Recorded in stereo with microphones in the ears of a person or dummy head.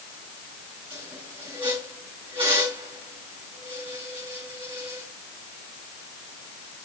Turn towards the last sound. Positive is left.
turn(degrees=-30)  # may be behind; listen again after turning